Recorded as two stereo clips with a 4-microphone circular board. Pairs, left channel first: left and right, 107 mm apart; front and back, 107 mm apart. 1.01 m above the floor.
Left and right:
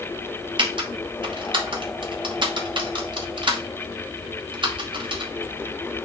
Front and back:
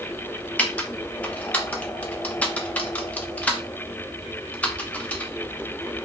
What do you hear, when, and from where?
0.6 s typing on a keyboard: 70° right, 1.0 m